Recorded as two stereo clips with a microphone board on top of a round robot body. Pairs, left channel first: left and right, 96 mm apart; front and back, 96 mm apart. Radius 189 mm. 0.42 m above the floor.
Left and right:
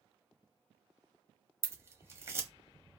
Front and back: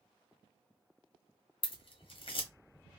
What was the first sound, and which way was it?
Scissors, 25° right.